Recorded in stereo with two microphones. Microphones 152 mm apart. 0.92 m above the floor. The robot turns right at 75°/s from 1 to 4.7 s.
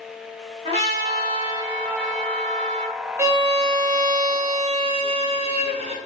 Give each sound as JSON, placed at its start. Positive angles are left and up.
{"t": 0.7, "sound": "a trumpet", "azimuth_deg": -80, "distance_m": 1.0}
{"t": 3.2, "sound": "a violin", "azimuth_deg": -160, "distance_m": 0.6}